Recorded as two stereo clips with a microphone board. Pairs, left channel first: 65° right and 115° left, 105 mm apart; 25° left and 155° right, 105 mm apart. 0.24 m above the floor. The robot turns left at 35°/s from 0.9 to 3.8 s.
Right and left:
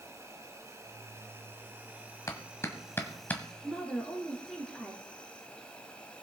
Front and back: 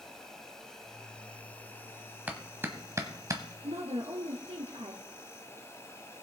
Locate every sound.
0.0 s an insect: 100° left, 1.6 m; by 6.2 s straight ahead, 1.6 m
2.3 s a clap: 90° right, 1.3 m; by 3.4 s 130° right, 1.3 m
3.6 s a woman speaking: 155° right, 2.5 m; by 5.0 s 160° right, 2.5 m